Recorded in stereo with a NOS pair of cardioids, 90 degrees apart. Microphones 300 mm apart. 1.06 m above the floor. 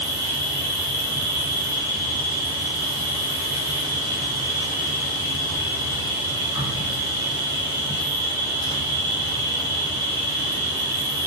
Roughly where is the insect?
Ahead.